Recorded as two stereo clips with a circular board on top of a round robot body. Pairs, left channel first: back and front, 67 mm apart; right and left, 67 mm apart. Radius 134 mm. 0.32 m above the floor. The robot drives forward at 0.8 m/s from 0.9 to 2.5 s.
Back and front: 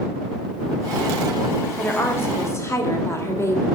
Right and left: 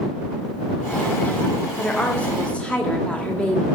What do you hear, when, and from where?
1.8 s a woman speaking: 140° right, 1.5 m; by 3.6 s 155° right, 1.8 m